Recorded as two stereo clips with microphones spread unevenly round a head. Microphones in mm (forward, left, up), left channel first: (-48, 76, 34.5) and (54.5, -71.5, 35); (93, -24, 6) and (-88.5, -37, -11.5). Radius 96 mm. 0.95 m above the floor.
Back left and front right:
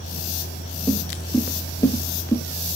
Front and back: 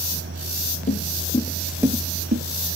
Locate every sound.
0.9 s footsteps: 40° left, 1.6 m; by 2.4 s 165° right, 1.3 m